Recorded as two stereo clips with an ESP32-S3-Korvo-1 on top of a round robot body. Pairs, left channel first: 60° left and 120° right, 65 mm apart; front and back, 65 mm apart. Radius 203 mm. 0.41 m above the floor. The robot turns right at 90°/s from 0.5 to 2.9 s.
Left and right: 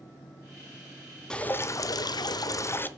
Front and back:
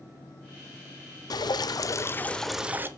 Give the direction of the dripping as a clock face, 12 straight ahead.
1 o'clock.